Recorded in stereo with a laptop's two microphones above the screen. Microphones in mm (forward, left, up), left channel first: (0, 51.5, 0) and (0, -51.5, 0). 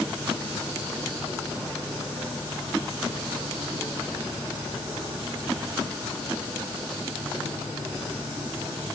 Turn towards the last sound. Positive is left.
No sound to turn to.